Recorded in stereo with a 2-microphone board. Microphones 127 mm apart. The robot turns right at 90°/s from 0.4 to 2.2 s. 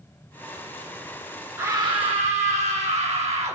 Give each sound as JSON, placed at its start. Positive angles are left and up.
{"t": 1.6, "sound": "a scream", "azimuth_deg": -155, "distance_m": 1.1}